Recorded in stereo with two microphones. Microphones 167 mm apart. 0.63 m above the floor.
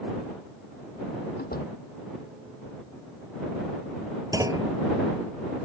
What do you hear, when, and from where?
1.4 s a door slam: 75° left (ahead or behind)
4.3 s a clunk: 20° right (ahead or behind)